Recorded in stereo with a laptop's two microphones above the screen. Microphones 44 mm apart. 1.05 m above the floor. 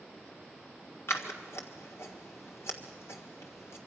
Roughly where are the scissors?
Left.